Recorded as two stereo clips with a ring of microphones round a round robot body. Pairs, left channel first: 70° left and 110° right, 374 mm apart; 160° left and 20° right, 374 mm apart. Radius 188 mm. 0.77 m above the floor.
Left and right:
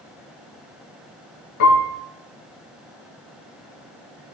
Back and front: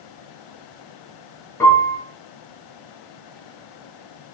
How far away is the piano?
About 4.5 m.